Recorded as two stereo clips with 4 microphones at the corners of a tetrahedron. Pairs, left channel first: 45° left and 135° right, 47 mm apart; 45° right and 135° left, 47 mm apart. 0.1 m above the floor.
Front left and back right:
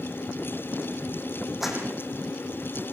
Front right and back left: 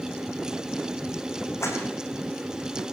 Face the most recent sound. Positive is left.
turn(degrees=-50)